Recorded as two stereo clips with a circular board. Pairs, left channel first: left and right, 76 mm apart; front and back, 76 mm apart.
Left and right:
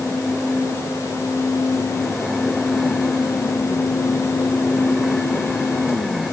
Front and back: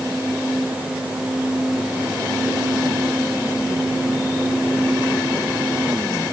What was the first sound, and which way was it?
Only background noise.